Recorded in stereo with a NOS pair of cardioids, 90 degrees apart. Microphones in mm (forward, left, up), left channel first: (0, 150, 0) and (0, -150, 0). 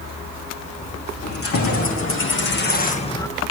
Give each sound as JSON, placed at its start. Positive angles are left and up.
{"t": 1.2, "sound": "keys jangling", "azimuth_deg": 50, "distance_m": 3.0}